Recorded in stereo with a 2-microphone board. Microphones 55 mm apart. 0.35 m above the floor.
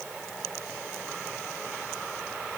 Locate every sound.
Only background noise.